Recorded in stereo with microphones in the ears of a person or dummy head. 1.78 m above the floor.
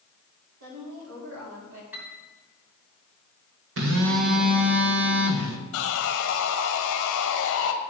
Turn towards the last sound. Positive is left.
turn(degrees=70)  # may be behind; listen again after turning